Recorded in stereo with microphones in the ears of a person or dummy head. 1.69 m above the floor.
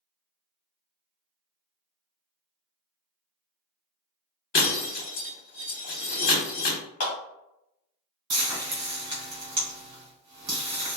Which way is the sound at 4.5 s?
50° left (ahead or behind).